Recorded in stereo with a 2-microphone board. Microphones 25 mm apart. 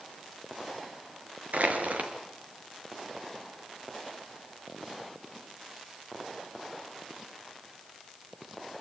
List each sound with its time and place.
1.5 s crushing: 70° right (ahead or behind), 4.5 m